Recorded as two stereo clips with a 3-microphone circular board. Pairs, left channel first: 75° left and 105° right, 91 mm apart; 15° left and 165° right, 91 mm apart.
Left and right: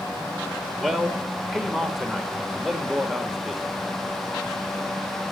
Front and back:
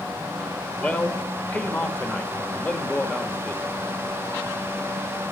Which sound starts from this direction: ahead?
A man speaking, at 0.8 s.